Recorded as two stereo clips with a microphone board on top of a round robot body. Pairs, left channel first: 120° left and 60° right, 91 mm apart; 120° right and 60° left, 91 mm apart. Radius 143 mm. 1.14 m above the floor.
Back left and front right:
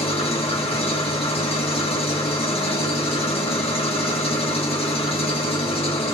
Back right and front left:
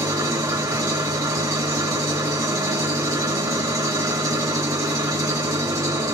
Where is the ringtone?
I don't hear a ringtone.